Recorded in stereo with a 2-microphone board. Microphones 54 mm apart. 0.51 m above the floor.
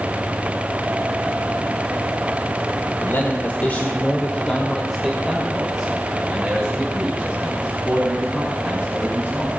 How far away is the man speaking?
About 1.8 m.